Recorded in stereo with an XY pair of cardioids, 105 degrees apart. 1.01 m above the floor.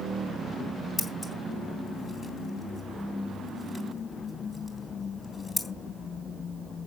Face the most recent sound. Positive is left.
turn(degrees=30)